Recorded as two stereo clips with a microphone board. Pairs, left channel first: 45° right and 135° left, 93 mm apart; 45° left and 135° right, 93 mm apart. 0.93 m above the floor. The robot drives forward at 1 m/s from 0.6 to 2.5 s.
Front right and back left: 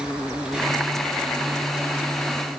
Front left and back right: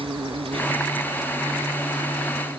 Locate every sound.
0.0 s an insect: 145° right; by 2.6 s 160° right